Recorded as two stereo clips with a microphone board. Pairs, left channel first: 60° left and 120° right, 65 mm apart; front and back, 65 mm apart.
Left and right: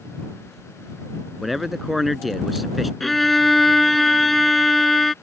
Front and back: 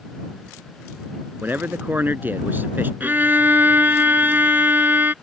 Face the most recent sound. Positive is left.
turn(degrees=145)